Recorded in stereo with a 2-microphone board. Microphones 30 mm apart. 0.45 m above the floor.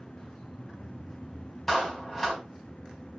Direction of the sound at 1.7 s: 10° left (ahead or behind).